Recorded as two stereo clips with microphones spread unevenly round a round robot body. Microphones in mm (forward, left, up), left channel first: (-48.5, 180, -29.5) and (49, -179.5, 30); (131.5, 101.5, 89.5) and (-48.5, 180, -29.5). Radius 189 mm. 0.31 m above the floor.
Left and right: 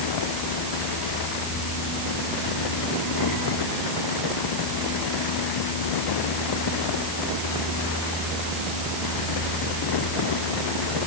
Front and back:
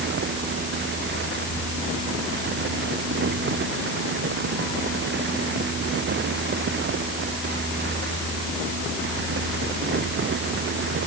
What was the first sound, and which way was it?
Only background noise.